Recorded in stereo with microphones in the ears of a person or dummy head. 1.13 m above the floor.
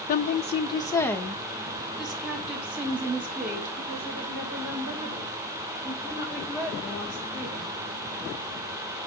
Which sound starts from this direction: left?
A woman speaking, at 0.1 s.